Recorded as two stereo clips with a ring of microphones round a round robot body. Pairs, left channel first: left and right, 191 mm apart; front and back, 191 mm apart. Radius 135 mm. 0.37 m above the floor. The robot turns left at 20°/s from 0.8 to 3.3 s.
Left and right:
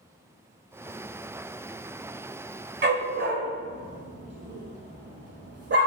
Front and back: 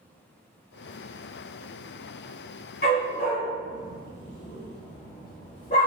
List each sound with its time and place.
2.8 s a dog barking: 55° right, 1.1 m; by 5.9 s 65° right, 1.1 m